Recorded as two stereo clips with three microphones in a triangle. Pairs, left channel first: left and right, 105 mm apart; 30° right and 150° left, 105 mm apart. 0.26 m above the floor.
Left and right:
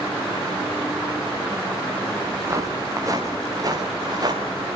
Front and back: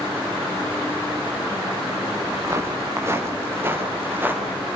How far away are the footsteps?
About 5 m.